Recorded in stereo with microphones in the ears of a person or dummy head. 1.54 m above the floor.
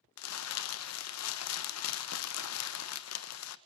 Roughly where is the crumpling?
Left.